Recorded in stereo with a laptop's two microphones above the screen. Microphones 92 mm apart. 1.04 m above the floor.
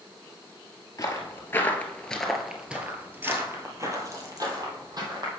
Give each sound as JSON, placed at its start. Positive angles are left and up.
{"t": 1.0, "sound": "footsteps", "side_deg": 40, "distance_m": 1.3}